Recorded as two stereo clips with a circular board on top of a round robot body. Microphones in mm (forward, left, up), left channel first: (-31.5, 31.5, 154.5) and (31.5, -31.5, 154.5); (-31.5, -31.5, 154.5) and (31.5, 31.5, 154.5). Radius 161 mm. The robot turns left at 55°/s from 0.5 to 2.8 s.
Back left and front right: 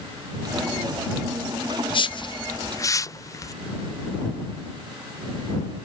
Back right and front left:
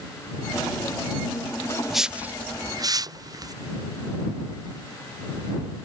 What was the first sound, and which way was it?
A whoosh, 135° left.